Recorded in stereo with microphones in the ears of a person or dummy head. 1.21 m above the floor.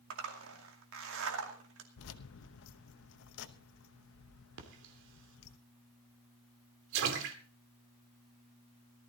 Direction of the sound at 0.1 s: 60° right (ahead or behind).